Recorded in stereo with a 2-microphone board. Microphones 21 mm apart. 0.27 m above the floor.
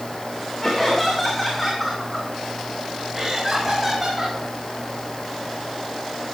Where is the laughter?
15° left (ahead or behind), 3.5 m; by 4.4 s 15° right (ahead or behind), 5 m.